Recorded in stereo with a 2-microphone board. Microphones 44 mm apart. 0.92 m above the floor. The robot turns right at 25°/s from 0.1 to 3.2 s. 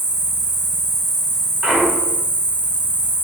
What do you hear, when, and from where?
0.0 s an insect: 15° right, 1.1 m; by 3.2 s 65° left, 1.1 m
1.6 s a clunk: 15° right (ahead or behind), 0.7 m; by 2.2 s 5° right (ahead or behind), 0.7 m